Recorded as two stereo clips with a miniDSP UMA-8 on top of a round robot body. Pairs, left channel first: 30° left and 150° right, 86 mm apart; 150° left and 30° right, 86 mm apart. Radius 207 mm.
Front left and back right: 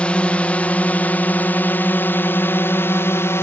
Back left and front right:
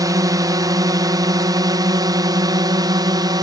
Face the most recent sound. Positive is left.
turn(degrees=-20)